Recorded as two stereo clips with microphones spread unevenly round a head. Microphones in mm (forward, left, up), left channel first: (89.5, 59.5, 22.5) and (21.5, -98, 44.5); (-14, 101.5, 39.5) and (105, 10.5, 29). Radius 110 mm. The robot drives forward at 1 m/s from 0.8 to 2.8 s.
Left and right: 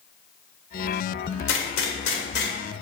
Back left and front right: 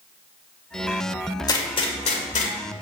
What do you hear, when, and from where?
1.5 s a gunshot: 85° left, 1.8 m; by 2.5 s 115° left, 2 m